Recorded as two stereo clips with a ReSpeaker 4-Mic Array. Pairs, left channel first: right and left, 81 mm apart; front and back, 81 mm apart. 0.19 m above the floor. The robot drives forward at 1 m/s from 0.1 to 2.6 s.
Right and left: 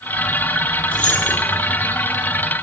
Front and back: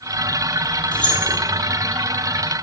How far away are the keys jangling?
About 3.5 m.